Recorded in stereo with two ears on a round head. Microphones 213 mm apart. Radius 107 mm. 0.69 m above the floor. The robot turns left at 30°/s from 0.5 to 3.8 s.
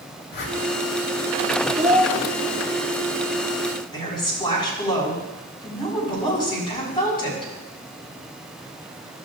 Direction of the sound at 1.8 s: 35° right (ahead or behind).